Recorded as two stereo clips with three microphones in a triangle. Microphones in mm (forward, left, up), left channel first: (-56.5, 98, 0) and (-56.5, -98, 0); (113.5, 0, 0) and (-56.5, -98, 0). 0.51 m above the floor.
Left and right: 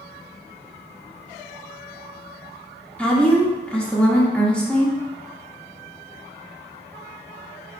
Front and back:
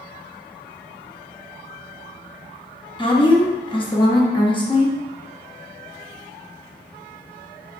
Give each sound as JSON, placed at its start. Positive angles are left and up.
{"t": 3.0, "sound": "a woman speaking", "azimuth_deg": 15, "distance_m": 0.8}